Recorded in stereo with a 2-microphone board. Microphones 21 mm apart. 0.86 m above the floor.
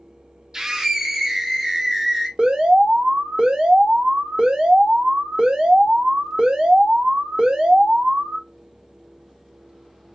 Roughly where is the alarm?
Right.